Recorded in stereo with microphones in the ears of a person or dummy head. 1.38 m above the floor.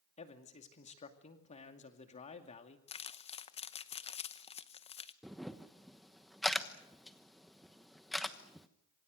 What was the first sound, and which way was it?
A man speaking, 30° left (ahead or behind).